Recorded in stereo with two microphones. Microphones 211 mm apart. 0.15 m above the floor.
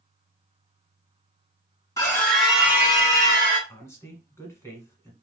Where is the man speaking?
15° left (ahead or behind), 1.1 m.